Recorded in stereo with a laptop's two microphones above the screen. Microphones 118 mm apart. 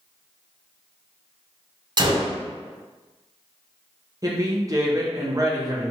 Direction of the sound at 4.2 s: 30° right (ahead or behind).